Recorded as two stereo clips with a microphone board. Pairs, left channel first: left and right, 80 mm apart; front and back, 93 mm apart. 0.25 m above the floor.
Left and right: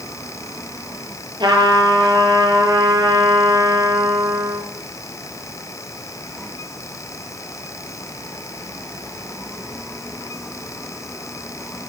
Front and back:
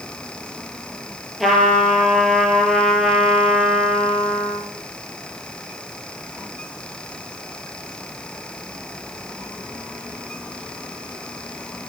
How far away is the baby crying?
I don't hear a baby crying.